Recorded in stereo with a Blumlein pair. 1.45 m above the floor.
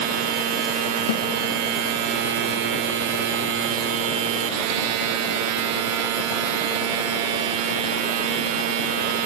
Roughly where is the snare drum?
Ahead left.